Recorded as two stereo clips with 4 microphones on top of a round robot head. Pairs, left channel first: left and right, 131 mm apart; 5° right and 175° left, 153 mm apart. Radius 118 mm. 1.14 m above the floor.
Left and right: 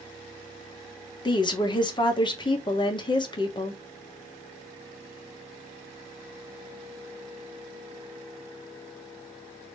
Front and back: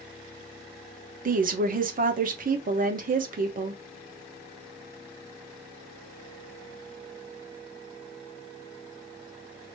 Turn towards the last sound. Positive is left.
turn(degrees=145)